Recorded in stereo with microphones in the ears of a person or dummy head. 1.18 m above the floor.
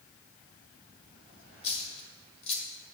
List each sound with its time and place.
1.6 s a dropped coin: 30° left (ahead or behind), 1.7 m